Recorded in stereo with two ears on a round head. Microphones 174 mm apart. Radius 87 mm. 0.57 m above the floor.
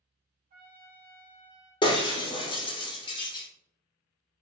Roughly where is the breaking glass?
Left.